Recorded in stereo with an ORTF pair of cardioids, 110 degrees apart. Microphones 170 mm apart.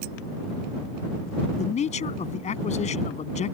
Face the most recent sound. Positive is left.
turn(degrees=45)